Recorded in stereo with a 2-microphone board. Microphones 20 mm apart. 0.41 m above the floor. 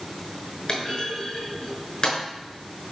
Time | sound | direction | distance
0.7 | a clunk | 35° left (ahead or behind) | 6 m